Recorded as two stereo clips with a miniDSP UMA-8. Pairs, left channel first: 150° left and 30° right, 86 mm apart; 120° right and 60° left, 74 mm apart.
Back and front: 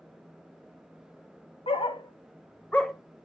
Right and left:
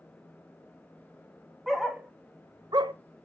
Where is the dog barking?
150° left, 1.2 m; by 2.9 s 65° left, 1.0 m.